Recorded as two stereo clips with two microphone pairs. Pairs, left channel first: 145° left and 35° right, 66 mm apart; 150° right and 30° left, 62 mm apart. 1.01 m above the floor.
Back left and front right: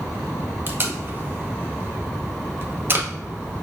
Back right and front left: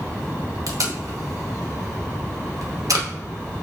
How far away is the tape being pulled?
About 0.7 m.